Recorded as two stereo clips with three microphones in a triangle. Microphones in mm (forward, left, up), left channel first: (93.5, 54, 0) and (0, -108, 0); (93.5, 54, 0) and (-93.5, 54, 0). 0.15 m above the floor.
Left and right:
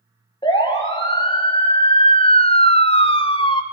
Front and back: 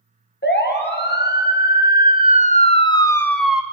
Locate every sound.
0.4 s a siren: 5° right, 3.5 m; by 3.6 s 100° left, 1.5 m